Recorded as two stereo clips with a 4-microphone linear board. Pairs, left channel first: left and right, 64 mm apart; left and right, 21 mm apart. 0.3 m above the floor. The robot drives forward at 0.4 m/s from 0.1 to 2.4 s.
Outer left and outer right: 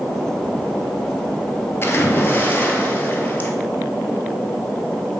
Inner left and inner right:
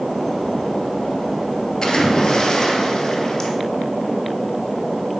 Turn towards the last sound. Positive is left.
turn(degrees=30)  # may be behind; listen again after turning